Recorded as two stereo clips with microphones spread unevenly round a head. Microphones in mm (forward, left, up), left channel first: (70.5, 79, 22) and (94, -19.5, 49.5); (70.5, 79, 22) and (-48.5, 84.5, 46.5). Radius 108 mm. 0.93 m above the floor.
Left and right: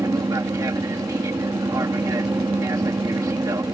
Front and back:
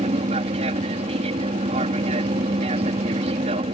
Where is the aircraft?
145° right.